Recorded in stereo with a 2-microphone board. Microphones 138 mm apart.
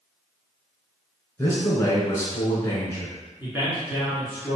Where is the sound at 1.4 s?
20° left (ahead or behind), 1.1 m.